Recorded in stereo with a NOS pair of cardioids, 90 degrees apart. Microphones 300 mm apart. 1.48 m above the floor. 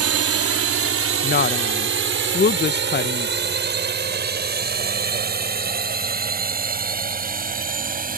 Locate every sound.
0.0 s a drone: 50° right; by 8.2 s 30° right
1.2 s a woman speaking: 35° left